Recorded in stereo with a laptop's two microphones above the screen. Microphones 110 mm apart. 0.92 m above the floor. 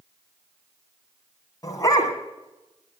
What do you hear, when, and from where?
1.6 s a dog barking: 35° left (ahead or behind), 2.0 m